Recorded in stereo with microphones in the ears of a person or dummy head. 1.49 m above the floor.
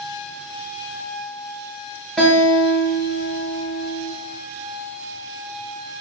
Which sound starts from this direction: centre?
A guitar, at 2.2 s.